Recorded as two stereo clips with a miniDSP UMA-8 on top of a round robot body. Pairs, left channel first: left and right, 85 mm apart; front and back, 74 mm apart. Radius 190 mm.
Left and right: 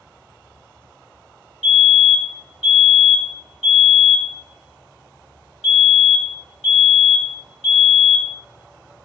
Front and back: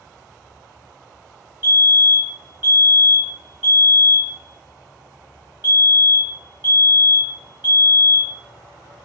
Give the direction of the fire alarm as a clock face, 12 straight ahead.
6 o'clock.